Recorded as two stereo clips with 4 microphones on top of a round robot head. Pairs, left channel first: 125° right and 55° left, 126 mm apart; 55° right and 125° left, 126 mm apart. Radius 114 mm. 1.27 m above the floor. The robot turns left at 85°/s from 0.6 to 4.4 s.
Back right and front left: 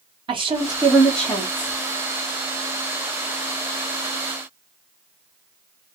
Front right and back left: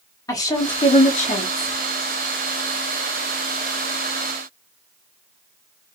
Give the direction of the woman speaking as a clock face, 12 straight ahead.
12 o'clock.